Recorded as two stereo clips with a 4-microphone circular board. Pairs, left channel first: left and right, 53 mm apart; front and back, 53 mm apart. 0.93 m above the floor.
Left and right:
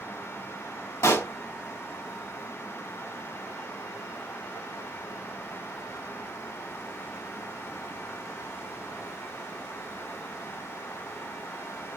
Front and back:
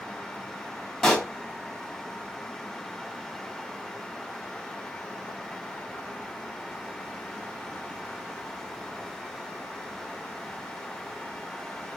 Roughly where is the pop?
Left.